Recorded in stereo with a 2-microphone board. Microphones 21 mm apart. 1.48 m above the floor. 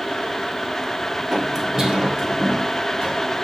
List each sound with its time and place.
1.3 s footsteps: 15° right (ahead or behind), 1.6 m; by 3.1 s 50° right (ahead or behind), 3 m